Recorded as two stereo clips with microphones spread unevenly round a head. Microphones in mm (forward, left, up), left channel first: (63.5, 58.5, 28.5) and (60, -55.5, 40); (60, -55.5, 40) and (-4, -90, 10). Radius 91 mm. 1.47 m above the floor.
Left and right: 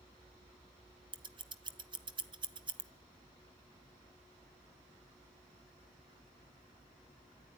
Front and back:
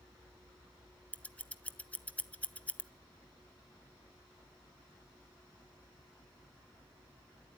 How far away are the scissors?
About 0.9 m.